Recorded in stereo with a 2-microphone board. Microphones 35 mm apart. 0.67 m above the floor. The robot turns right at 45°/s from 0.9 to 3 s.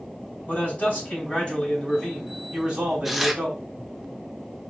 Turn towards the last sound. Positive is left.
turn(degrees=-5)  # may be behind; listen again after turning